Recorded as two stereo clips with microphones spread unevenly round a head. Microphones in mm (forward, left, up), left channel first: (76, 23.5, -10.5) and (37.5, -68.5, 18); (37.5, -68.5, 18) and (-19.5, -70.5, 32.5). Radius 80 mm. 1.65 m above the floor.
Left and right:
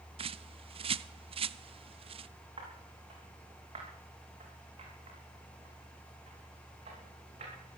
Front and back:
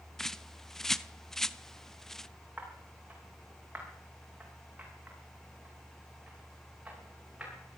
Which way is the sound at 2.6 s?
120° right.